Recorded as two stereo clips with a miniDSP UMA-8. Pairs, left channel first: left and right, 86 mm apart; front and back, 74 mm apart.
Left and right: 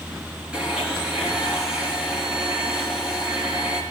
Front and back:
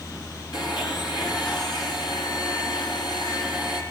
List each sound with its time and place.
0.5 s a blender: 10° right, 7 m